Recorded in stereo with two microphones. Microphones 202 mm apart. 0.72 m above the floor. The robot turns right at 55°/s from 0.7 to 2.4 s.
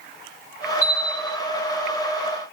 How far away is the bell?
About 2 m.